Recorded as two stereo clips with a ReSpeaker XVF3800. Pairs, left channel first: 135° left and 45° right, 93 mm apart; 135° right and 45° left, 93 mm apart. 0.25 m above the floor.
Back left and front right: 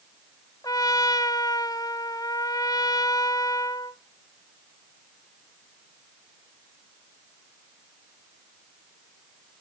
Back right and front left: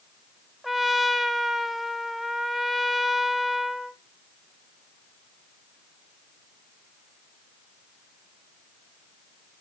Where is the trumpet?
135° left, 0.8 m.